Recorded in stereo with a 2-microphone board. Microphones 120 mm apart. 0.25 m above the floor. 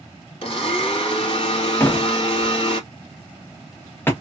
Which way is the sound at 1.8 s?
20° left (ahead or behind).